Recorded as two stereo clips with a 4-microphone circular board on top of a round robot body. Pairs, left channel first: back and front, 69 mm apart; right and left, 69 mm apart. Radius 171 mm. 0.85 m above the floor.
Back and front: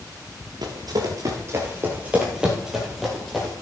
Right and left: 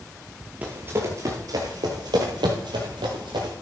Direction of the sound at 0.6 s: 20° left.